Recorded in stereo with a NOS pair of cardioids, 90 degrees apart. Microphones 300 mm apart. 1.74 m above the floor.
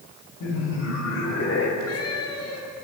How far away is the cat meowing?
About 8 m.